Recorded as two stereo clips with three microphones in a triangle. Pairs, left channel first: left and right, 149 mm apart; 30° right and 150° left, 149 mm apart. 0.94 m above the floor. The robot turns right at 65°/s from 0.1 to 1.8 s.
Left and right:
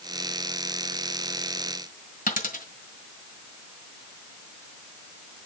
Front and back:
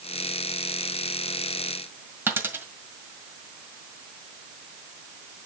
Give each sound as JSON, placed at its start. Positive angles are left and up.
{"t": 2.3, "sound": "a dropped coin", "azimuth_deg": 75, "distance_m": 1.6}